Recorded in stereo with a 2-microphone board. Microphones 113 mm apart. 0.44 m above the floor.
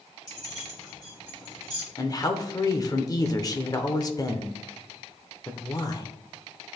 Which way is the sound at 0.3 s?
35° left (ahead or behind).